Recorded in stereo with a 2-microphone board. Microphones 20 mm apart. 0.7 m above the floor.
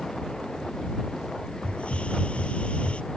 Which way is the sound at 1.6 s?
70° left (ahead or behind).